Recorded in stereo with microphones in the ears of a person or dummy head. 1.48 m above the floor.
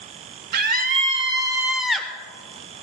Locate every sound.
0.5 s a scream: 50° right (ahead or behind), 1.3 m; by 2.1 s 5° left (ahead or behind), 1.2 m